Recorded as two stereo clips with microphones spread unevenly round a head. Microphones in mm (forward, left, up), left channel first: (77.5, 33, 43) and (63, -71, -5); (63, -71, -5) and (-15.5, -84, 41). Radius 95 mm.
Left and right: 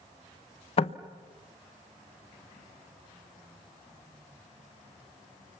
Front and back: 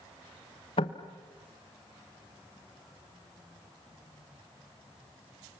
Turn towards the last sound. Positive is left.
turn(degrees=55)